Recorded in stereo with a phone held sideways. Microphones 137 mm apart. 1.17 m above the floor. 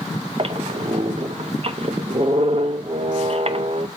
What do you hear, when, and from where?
0.4 s a squeak: 45° right (ahead or behind), 0.5 m